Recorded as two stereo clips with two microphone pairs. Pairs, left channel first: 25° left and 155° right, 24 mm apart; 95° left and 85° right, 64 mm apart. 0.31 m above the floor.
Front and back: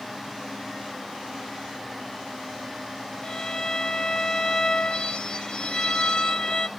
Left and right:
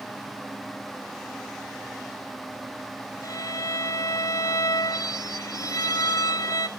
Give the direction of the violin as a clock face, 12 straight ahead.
9 o'clock.